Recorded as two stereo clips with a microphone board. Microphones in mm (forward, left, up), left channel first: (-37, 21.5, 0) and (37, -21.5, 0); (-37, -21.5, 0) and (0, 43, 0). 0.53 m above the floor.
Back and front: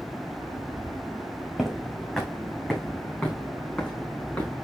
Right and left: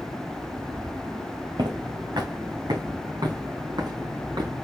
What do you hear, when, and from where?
1.6 s footsteps: 60° left, 2.5 m; by 4.5 s 80° left, 4 m